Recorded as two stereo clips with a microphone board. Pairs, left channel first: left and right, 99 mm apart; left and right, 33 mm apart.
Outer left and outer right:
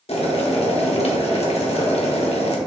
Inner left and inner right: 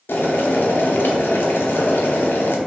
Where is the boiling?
75° left (ahead or behind), 0.8 m.